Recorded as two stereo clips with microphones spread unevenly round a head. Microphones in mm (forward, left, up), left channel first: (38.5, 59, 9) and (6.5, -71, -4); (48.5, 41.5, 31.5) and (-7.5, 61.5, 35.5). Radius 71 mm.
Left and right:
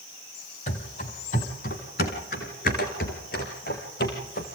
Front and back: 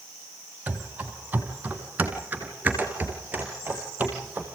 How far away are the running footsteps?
About 2.5 m.